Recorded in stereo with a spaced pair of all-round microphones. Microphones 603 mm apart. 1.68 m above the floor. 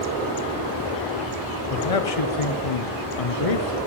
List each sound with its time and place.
1.7 s a man speaking: 60° left (ahead or behind), 0.9 m